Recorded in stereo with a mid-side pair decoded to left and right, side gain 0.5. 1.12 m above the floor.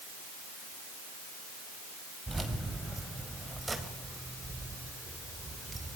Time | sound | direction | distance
2.3 | keys jangling | 15° right | 4.5 m